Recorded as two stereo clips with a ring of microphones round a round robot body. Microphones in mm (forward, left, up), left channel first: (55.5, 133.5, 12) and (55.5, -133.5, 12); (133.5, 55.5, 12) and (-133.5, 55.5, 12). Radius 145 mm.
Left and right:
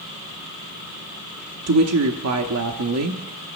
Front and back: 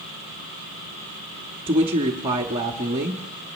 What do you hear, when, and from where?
1.7 s a woman speaking: 110° right, 1.0 m